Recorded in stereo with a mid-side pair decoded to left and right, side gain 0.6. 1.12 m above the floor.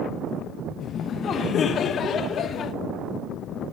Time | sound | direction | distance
0.8 | laughter | 45° left | 0.7 m